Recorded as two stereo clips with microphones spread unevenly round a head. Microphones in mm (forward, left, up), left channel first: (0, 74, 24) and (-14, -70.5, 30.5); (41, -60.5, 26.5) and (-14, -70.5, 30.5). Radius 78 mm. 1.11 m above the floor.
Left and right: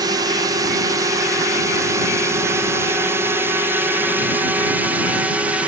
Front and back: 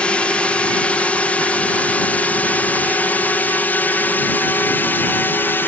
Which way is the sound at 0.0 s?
45° right.